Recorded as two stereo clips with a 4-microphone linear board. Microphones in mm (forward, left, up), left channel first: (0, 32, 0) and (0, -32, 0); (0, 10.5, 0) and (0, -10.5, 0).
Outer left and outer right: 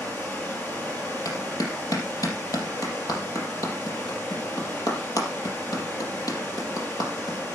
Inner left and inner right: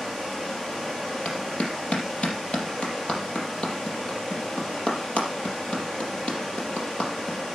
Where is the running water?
25° left (ahead or behind), 5.5 m.